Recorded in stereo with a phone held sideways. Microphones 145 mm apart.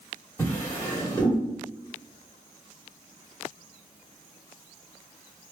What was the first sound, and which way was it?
A drawer, 20° left (ahead or behind).